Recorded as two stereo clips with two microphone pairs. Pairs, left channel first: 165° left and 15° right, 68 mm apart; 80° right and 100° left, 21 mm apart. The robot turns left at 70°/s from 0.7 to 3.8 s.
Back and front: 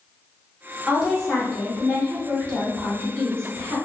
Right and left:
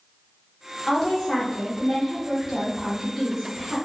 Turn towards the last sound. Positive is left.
turn(degrees=75)